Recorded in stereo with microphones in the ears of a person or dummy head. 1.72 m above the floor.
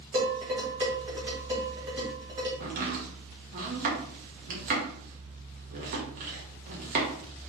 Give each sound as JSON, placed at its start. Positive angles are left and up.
{"t": 0.1, "sound": "dishes clattering", "side_deg": -25, "distance_m": 2.5}
{"t": 2.6, "sound": "chopping", "side_deg": -50, "distance_m": 1.5}